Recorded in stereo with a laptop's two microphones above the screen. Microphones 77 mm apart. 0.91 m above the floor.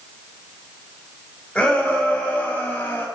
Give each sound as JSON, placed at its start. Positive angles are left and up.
{"t": 1.6, "sound": "a shout", "side_deg": 15, "distance_m": 5.5}